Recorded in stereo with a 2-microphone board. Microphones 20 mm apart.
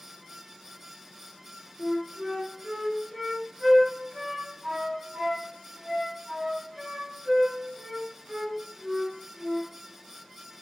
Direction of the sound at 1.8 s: 45° right (ahead or behind).